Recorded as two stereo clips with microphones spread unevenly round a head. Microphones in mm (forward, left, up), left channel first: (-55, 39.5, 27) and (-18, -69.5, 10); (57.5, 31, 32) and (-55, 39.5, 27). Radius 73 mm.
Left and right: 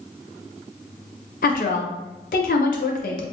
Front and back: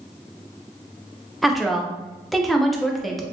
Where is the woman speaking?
85° left, 0.7 m.